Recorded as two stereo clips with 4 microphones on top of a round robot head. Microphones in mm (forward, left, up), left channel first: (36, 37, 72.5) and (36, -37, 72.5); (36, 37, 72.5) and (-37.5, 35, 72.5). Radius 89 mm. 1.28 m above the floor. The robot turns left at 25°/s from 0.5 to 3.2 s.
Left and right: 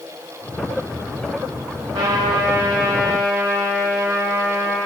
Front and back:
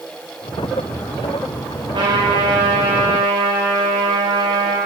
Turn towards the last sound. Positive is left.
turn(degrees=-165)